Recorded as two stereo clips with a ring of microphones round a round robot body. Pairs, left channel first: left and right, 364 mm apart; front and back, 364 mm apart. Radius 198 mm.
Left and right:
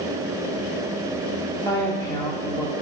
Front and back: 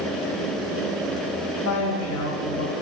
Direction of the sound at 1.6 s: 15° left.